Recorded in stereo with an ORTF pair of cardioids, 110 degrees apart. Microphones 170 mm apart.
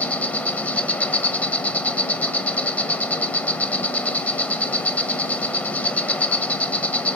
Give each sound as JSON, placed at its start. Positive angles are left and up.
{"t": 0.0, "sound": "an insect", "azimuth_deg": 10, "distance_m": 0.9}